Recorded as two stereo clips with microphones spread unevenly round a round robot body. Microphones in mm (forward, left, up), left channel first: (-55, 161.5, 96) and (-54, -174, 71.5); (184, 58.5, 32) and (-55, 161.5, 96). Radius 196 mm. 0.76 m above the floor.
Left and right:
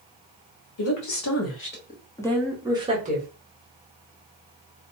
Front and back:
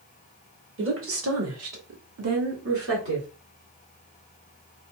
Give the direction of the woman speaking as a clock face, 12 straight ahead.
8 o'clock.